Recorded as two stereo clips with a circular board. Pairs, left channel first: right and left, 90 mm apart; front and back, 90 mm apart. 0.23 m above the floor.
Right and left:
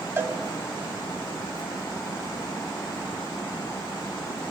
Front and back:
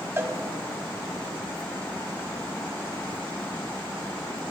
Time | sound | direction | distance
0.2 | a cowbell | 140° left | 1.1 m